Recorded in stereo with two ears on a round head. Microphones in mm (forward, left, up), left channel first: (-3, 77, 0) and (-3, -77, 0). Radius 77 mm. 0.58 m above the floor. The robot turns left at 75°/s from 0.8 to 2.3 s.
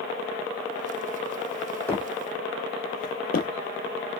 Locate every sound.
1.9 s footsteps: 10° left (ahead or behind), 1.2 m; by 4.2 s 50° left (ahead or behind), 0.9 m